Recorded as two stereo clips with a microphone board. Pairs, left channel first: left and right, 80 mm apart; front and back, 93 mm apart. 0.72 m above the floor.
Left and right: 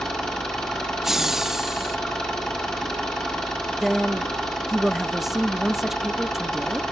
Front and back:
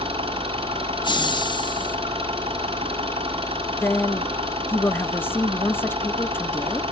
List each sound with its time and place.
0.0 s an engine running: 170° left, 5.5 m
1.0 s laughter: 5° right, 1.1 m
3.8 s a woman speaking: 5° right, 0.6 m